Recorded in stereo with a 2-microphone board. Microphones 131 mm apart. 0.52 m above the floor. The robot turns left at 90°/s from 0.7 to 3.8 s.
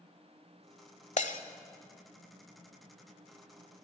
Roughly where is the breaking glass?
Left.